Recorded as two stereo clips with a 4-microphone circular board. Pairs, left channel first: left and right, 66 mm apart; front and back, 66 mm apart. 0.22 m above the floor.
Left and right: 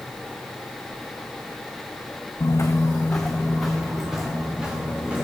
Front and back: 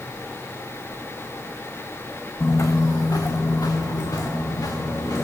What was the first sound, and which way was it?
Footsteps, 50° left.